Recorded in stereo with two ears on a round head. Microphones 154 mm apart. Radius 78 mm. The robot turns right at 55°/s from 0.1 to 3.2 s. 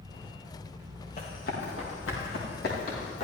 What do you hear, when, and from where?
1.2 s running footsteps: 40° left (ahead or behind), 5 m; by 3.2 s 35° left (ahead or behind), 6.5 m